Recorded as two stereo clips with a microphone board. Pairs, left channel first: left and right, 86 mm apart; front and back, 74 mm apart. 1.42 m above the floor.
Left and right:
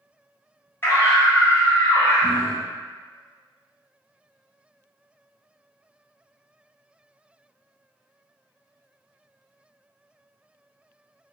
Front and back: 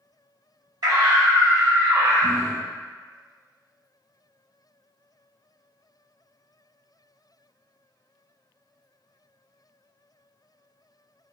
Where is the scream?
155° left, 1.9 m.